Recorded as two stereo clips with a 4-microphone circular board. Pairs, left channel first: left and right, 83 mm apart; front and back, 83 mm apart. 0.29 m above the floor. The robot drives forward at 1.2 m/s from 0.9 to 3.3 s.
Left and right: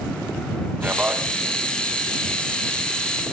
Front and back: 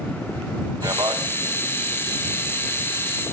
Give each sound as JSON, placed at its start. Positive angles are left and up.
{"t": 0.8, "sound": "a man speaking", "azimuth_deg": -155, "distance_m": 1.8}